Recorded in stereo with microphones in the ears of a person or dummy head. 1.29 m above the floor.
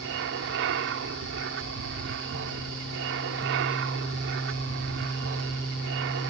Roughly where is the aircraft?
Right.